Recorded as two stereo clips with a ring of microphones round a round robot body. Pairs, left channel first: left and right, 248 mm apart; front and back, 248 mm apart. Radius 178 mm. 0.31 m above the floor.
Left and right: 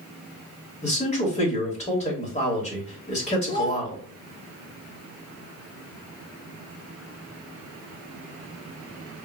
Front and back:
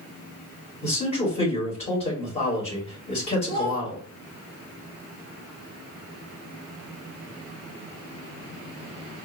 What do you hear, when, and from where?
0.8 s a man speaking: 50° left, 1.3 m
3.5 s a child speaking: 45° left, 0.9 m